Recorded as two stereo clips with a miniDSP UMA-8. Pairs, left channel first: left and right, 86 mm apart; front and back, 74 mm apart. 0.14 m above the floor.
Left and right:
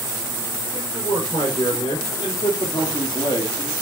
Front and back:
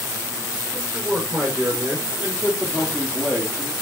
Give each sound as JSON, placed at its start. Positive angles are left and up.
{"t": 0.7, "sound": "a man speaking", "azimuth_deg": 110, "distance_m": 6.0}